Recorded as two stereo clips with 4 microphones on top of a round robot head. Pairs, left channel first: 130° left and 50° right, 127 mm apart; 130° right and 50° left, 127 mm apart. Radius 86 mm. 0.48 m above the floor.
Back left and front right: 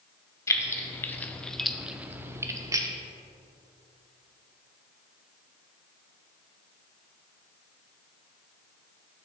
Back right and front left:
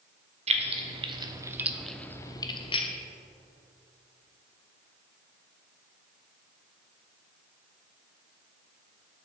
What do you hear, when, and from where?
0.5 s keys jangling: 65° left, 1.1 m; by 2.9 s 105° right, 1.0 m